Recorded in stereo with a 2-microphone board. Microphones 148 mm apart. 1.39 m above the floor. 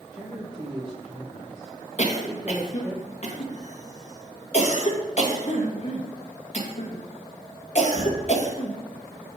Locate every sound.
0.1 s a man speaking: 20° right (ahead or behind), 1.2 m
2.0 s a cough: 55° left (ahead or behind), 1.7 m